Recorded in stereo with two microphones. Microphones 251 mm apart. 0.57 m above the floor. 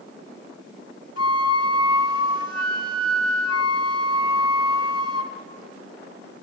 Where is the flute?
80° left, 1.9 m.